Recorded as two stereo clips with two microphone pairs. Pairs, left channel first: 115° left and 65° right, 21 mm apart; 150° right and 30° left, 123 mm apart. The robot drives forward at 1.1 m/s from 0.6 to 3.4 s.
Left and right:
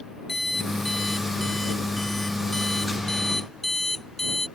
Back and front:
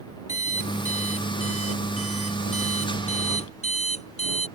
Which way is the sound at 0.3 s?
165° right.